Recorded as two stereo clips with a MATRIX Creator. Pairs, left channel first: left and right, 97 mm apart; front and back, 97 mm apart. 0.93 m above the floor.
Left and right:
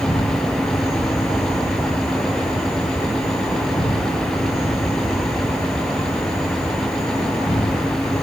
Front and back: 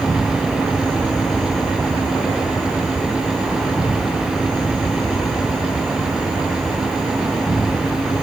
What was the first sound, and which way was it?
An insect, 80° left.